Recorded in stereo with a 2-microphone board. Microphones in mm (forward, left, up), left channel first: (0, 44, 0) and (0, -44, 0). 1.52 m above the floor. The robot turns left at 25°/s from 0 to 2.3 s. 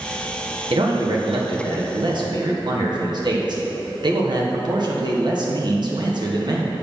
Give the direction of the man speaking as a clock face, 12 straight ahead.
3 o'clock.